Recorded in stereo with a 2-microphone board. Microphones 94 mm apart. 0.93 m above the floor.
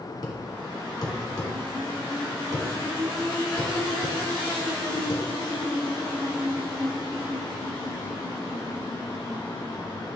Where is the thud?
40° left (ahead or behind), 1.4 m.